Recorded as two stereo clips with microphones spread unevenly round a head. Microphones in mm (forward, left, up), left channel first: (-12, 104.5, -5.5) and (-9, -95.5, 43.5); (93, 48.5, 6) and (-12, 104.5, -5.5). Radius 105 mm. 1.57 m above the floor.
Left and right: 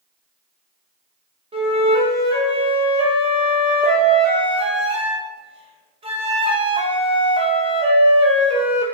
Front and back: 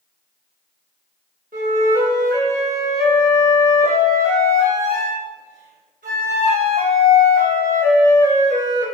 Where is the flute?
155° right, 2 m.